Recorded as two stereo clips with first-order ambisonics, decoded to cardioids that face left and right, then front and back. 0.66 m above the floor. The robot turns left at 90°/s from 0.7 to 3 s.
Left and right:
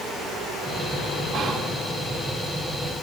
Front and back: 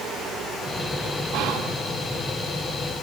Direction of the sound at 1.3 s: 165° right.